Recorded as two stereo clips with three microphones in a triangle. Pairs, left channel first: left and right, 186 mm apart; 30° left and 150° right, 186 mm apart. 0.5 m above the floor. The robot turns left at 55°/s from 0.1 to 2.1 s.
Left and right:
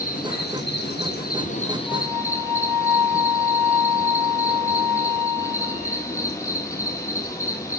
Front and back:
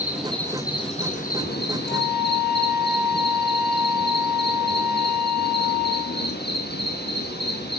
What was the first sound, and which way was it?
An insect, 130° left.